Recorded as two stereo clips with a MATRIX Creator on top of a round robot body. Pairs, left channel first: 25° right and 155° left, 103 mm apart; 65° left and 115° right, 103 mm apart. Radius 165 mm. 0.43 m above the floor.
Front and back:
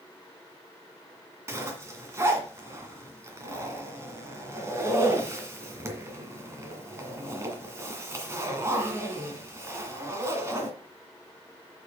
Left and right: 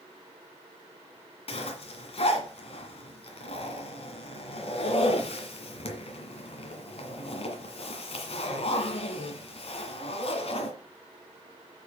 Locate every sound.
1.5 s a zipper: 95° left, 2.0 m